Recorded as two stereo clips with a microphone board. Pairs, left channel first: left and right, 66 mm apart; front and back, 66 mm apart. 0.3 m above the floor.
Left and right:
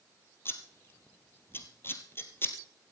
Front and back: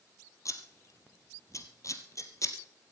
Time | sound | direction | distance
0.5 | scissors | 35° left | 2.0 m